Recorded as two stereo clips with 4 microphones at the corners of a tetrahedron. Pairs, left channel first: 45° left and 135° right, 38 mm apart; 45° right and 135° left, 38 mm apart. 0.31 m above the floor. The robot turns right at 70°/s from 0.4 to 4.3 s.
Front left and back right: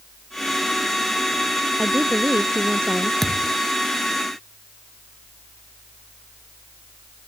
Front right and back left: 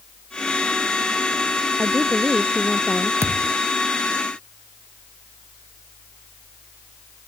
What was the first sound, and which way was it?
A woman speaking, 165° left.